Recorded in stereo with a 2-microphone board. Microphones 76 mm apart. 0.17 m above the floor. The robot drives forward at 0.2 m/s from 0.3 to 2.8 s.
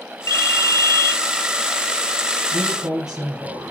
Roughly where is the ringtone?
Left.